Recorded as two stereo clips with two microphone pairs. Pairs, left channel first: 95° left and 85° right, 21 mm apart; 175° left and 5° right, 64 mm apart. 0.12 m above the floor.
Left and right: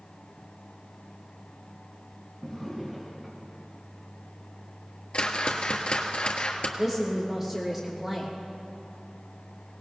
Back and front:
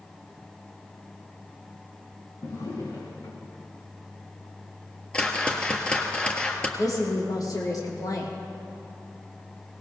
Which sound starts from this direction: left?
A whoosh, at 5.1 s.